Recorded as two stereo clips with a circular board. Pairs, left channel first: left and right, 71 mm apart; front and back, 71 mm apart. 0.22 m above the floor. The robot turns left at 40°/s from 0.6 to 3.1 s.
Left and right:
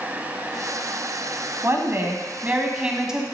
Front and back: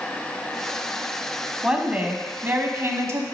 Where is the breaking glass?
I don't hear breaking glass.